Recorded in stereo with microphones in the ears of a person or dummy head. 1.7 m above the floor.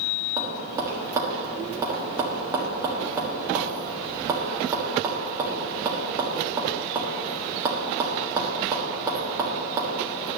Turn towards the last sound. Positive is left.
turn(degrees=-15)  # may be behind; listen again after turning